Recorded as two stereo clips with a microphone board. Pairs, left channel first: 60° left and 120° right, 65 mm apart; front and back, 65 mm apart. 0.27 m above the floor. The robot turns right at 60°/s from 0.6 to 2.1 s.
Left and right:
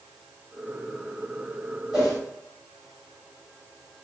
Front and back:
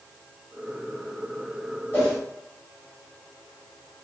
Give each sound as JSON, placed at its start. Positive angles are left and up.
{"t": 1.9, "sound": "a whoosh", "azimuth_deg": -50, "distance_m": 1.8}